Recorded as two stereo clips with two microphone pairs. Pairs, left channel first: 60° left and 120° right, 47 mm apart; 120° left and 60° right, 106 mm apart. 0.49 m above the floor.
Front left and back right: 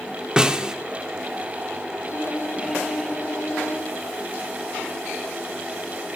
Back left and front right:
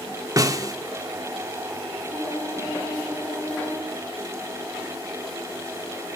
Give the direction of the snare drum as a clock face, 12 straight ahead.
2 o'clock.